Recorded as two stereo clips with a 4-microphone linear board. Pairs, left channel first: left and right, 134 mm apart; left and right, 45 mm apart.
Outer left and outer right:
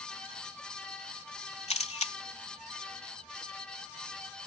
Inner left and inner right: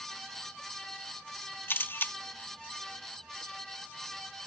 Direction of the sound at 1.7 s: 55° left (ahead or behind).